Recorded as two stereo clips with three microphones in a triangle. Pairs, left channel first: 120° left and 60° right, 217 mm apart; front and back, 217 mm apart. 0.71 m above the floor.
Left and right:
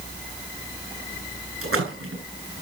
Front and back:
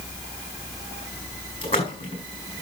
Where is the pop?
No pop in this recording.